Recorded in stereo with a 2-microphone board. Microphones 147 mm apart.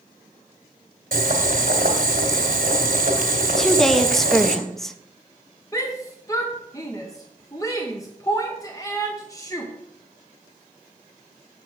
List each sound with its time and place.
1.1 s boiling: 70° right (ahead or behind), 2 m
3.6 s a woman speaking: 5° left (ahead or behind), 0.7 m
5.7 s a shout: 20° left (ahead or behind), 0.7 m